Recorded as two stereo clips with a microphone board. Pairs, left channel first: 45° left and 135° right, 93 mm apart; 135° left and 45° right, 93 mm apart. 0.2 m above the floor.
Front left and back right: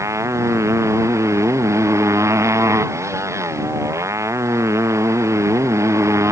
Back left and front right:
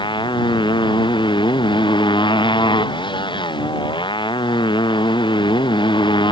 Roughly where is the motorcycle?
Behind.